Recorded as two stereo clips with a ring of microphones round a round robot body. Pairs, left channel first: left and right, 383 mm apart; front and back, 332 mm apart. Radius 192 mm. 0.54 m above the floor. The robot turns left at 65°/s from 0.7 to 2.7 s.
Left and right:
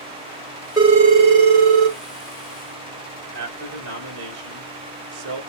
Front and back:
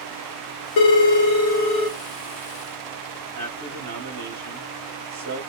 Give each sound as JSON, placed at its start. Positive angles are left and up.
{"t": 0.8, "sound": "a phone ringing", "azimuth_deg": -10, "distance_m": 1.2}
{"t": 3.3, "sound": "a man speaking", "azimuth_deg": -120, "distance_m": 2.0}